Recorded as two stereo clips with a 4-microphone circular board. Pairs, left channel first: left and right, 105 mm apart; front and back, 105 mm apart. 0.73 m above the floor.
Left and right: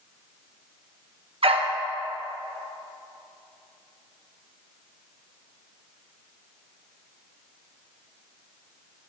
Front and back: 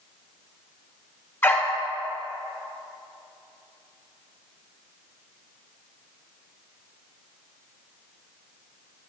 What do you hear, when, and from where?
1.4 s a dog barking: 70° right, 0.7 m